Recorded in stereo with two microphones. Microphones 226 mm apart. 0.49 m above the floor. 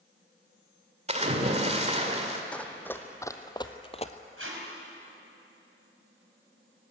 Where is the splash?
30° right (ahead or behind), 1.9 m.